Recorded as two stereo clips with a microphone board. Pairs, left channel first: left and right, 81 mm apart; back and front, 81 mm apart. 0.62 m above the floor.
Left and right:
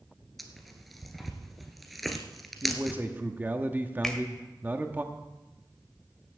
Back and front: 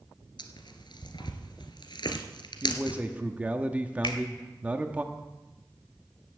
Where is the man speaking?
50° right, 1.0 m.